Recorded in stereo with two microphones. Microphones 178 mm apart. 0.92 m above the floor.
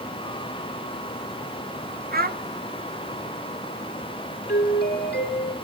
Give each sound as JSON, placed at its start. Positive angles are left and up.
{"t": 2.1, "sound": "a child speaking", "side_deg": -55, "distance_m": 1.0}
{"t": 4.5, "sound": "a doorbell", "side_deg": 70, "distance_m": 3.0}